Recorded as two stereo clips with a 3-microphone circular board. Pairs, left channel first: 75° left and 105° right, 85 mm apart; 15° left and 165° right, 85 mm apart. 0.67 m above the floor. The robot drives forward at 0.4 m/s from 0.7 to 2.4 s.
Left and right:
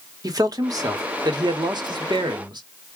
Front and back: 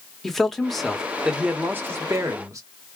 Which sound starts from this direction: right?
A man speaking, at 0.2 s.